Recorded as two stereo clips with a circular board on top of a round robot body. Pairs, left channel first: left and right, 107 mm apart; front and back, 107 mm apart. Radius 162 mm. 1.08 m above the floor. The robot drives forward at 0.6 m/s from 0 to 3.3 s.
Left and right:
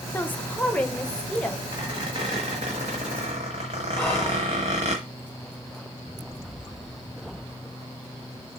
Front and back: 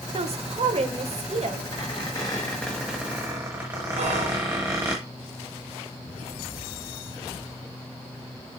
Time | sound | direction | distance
0.1 | a woman speaking | 165° left | 1.0 m
1.7 | a squeak | 40° right | 1.2 m
4.0 | whispering | 175° left | 3 m